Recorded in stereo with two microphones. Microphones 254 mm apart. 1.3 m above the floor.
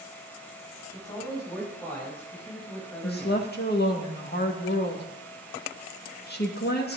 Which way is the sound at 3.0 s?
40° left (ahead or behind).